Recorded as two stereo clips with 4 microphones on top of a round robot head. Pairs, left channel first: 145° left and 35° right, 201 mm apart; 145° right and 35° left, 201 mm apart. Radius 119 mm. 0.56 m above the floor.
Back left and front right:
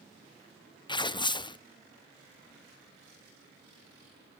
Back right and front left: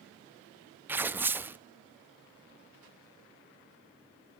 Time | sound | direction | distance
0.9 | tearing paper | 105° left | 0.6 m